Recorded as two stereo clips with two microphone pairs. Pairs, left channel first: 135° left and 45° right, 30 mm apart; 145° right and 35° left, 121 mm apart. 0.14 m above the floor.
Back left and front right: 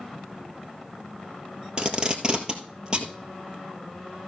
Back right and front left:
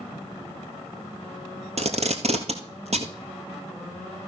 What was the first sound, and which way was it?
Tape being pulled, 15° left.